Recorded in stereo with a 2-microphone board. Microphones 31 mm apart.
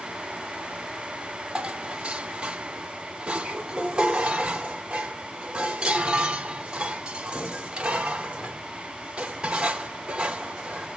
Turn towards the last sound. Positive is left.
turn(degrees=-25)  # may be behind; listen again after turning